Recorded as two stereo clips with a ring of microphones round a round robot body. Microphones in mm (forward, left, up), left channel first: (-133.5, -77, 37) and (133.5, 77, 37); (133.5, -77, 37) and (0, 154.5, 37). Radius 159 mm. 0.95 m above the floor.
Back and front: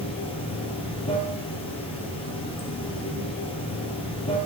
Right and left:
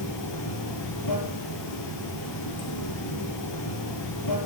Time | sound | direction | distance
0.0 | running water | 80° right | 2.5 m